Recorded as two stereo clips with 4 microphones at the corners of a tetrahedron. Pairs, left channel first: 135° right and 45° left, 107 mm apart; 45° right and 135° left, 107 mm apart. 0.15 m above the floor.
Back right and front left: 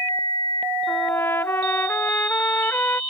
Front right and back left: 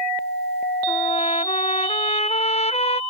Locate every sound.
0.9 s a trumpet: 65° right